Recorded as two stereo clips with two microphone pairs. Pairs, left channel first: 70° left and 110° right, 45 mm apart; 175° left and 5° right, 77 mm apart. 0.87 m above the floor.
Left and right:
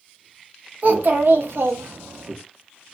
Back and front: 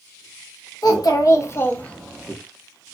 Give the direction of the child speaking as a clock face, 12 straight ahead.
5 o'clock.